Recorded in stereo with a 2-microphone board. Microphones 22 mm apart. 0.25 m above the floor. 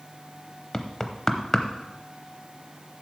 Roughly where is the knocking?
Left.